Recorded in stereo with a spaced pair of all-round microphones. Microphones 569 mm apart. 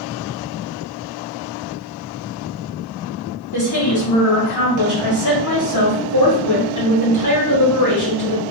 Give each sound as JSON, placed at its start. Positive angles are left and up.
{"t": 3.5, "sound": "a woman speaking", "side_deg": 30, "distance_m": 1.9}